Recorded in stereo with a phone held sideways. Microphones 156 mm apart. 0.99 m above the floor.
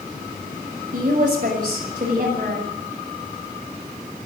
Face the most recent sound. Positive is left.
turn(degrees=-55)  # may be behind; listen again after turning